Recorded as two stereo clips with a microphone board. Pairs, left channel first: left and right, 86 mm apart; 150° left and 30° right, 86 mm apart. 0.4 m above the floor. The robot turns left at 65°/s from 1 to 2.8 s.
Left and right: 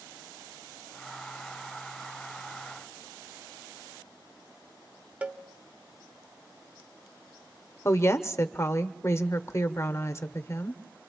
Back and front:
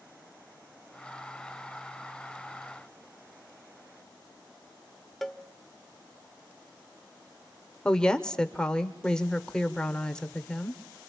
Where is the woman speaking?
80° left, 0.9 m.